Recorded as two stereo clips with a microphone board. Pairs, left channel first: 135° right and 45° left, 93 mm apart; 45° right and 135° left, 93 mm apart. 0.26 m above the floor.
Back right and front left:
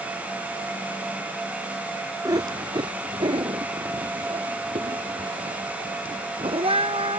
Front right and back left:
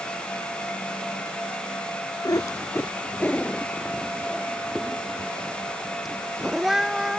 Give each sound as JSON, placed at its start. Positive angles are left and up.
{"t": 2.2, "sound": "a cat meowing", "azimuth_deg": 0}